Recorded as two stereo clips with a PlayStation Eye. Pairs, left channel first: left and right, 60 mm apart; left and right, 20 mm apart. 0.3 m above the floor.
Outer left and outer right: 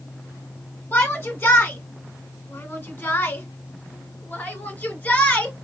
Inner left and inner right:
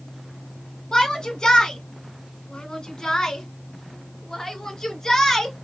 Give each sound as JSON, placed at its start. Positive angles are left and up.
{"t": 0.9, "sound": "a shout", "side_deg": 25, "distance_m": 1.2}